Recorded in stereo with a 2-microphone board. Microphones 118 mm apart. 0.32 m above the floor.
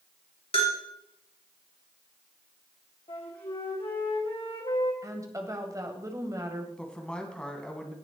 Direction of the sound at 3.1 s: 50° left (ahead or behind).